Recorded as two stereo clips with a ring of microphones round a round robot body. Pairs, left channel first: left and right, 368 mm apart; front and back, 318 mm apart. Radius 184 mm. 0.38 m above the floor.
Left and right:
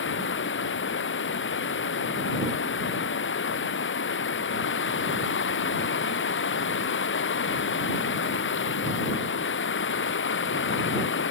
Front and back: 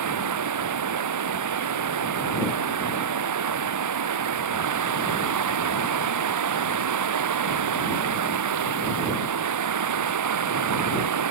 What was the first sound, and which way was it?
Running water, 150° left.